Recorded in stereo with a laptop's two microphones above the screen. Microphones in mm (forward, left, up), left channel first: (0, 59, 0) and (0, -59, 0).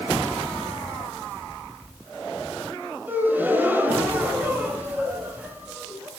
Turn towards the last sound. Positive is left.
turn(degrees=-15)  # may be behind; listen again after turning